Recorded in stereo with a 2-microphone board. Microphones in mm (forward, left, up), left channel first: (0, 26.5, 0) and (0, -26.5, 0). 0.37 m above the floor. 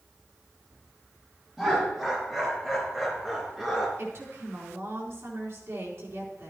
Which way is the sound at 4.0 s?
60° right (ahead or behind).